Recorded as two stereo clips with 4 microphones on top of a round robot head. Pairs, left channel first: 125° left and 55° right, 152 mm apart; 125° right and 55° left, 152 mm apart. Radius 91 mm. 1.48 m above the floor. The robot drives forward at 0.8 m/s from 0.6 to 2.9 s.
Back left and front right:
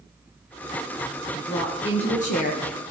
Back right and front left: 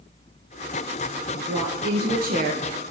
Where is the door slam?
I don't hear a door slam.